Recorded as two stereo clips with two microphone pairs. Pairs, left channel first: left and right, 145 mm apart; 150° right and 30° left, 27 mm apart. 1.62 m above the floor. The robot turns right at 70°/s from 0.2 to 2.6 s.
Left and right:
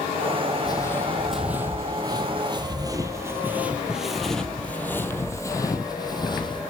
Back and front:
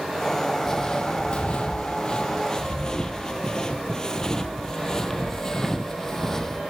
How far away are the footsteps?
About 2.5 m.